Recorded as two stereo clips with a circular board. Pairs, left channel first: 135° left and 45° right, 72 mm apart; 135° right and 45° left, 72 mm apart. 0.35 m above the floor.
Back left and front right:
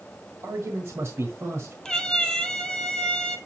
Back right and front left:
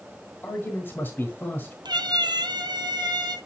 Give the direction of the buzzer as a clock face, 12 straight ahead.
I don't hear a buzzer.